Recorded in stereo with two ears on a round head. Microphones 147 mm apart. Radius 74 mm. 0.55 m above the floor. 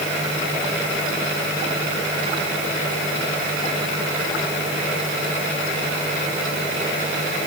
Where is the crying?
No crying in this recording.